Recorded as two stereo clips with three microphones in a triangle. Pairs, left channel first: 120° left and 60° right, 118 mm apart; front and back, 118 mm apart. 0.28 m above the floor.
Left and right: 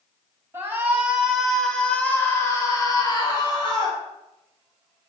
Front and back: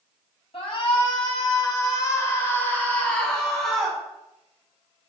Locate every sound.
0.5 s a shout: 5° left, 2.5 m; by 4.0 s 95° left, 3 m